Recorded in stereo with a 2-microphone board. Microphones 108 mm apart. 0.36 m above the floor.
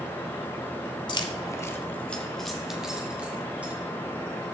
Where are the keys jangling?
45° left (ahead or behind), 0.9 m; by 3.7 s 15° right (ahead or behind), 2 m.